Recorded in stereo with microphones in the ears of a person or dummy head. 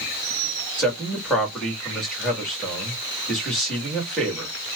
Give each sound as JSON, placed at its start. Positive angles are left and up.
{"t": 0.8, "sound": "a man speaking", "side_deg": 5, "distance_m": 1.8}